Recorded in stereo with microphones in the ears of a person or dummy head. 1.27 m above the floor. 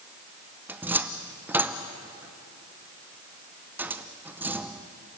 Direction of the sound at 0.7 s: 10° right (ahead or behind).